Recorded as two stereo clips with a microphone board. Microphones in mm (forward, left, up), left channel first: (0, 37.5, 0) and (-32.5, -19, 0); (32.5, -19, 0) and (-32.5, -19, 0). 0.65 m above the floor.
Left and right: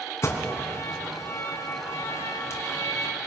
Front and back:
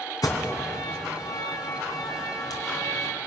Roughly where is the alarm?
Ahead.